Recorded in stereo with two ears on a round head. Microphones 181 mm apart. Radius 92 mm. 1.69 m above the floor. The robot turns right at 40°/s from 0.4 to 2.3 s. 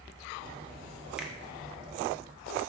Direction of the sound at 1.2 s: 5° right (ahead or behind).